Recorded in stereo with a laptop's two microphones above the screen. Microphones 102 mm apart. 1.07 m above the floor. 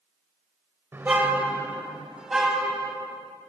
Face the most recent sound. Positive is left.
turn(degrees=-5)  # may be behind; listen again after turning